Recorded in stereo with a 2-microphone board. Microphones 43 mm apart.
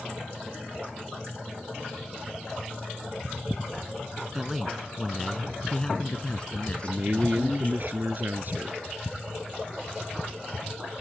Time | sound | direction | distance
4.3 | a man speaking | 10° right (ahead or behind) | ?
6.8 | a man speaking | 50° right (ahead or behind) | ?